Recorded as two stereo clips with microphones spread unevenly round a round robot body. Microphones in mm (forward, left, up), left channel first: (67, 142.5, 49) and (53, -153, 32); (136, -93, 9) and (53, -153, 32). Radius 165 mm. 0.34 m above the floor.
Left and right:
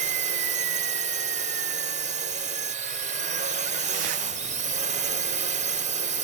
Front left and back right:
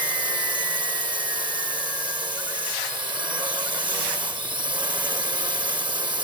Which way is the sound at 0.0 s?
125° right.